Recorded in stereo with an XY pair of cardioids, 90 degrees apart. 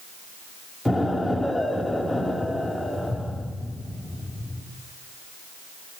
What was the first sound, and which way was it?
An explosion, 10° left.